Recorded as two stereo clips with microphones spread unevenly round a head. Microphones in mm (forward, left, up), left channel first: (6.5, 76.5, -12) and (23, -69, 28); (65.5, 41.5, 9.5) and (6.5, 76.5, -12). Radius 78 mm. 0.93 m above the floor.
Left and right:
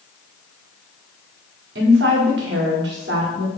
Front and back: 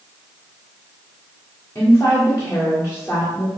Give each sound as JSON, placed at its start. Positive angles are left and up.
{"t": 1.8, "sound": "a woman speaking", "azimuth_deg": -110, "distance_m": 1.9}